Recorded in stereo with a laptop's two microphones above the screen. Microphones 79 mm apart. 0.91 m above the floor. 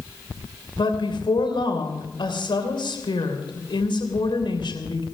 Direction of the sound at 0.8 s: 80° left.